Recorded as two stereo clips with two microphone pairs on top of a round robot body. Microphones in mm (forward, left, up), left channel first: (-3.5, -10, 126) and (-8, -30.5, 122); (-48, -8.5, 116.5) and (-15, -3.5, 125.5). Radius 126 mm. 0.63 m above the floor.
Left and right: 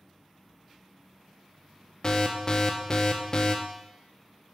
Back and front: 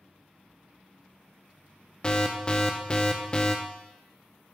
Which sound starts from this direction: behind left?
An alarm, at 2.0 s.